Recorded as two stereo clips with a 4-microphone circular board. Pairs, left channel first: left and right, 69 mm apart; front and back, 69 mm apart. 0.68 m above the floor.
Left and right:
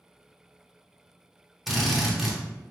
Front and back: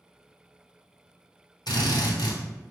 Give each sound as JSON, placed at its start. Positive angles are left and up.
{"t": 1.7, "sound": "a drill", "azimuth_deg": 0, "distance_m": 0.7}